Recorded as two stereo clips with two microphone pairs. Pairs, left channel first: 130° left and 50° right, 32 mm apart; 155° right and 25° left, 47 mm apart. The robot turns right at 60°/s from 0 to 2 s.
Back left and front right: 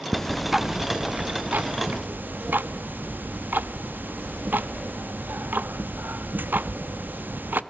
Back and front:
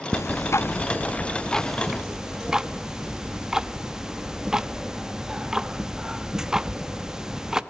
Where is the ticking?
160° right, 0.6 m; by 7.6 s 50° right, 0.6 m.